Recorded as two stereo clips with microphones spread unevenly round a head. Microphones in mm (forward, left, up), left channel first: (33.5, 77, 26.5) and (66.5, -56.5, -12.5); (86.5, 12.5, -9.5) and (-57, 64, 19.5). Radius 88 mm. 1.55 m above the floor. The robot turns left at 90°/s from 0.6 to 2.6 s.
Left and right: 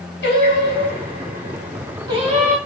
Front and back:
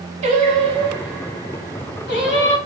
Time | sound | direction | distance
0.2 | singing | 115° left | 1.6 m